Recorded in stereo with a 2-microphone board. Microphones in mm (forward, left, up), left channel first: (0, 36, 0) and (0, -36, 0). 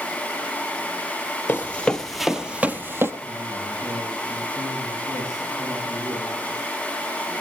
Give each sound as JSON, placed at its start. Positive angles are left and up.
{"t": 1.5, "sound": "running footsteps", "side_deg": 25, "distance_m": 1.3}
{"t": 3.2, "sound": "a man speaking", "side_deg": -50, "distance_m": 9.0}